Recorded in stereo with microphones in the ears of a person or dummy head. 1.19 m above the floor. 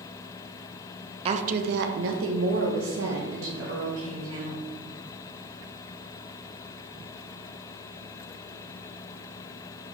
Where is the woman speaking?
35° right (ahead or behind), 0.6 m; by 4.7 s 60° right (ahead or behind), 2 m.